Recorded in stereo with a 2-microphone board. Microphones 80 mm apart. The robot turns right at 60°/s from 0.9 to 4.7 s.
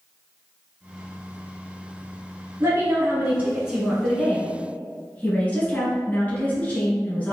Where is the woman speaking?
85° right, 1.9 m; by 7.3 s 40° left, 1.9 m.